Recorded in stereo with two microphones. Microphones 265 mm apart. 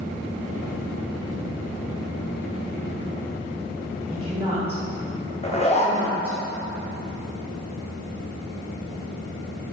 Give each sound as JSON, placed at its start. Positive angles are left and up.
{"t": 4.1, "sound": "a woman speaking", "side_deg": -20, "distance_m": 1.3}
{"t": 5.4, "sound": "a zipper", "side_deg": 25, "distance_m": 0.8}